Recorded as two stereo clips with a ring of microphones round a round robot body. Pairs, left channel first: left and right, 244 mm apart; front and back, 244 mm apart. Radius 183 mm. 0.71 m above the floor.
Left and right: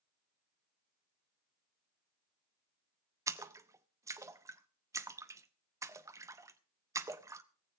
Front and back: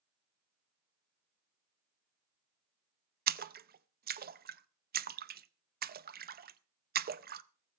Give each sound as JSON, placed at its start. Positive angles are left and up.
{"t": 3.3, "sound": "a splash", "azimuth_deg": -160, "distance_m": 0.7}